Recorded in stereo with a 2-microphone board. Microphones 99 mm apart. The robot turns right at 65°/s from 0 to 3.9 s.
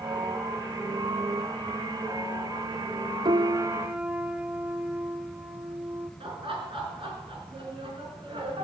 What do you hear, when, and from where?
3.2 s a piano: 55° right, 0.7 m; by 6.1 s 15° right, 0.7 m
6.2 s laughter: 60° right (ahead or behind), 4 m